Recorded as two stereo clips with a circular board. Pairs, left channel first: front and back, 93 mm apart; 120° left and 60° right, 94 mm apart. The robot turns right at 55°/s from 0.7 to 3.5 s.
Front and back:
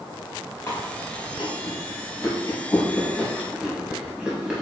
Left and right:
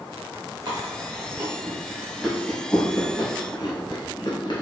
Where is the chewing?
50° right, 0.8 m; by 4.6 s 105° left, 0.8 m.